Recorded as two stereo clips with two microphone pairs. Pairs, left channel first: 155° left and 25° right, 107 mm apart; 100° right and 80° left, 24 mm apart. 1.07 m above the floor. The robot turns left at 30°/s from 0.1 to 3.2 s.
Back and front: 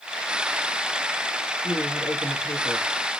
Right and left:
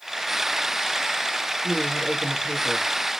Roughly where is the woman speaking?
Behind right.